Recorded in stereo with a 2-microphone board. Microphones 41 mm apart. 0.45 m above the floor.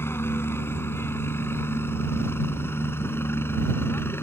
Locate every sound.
0.0 s a helicopter: 70° left (ahead or behind); by 4.2 s 65° left (ahead or behind)